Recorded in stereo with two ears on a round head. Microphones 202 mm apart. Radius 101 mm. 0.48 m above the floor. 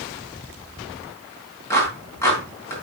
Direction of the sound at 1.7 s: 10° left (ahead or behind).